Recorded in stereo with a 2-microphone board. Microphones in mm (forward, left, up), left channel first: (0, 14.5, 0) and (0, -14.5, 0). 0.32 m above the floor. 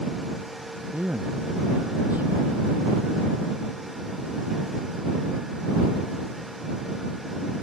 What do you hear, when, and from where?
0.9 s a man speaking: 85° right; by 3.1 s 75° right (ahead or behind)